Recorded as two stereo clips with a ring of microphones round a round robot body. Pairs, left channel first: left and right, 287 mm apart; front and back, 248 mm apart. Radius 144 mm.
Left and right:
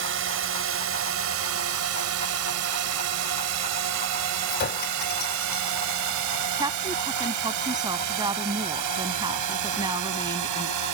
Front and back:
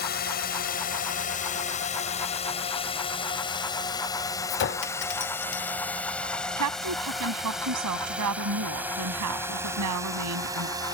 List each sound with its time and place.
0.0 s a drone: 50° right; by 10.9 s 105° right
4.5 s a clink: 35° left
6.6 s a woman speaking: 165° right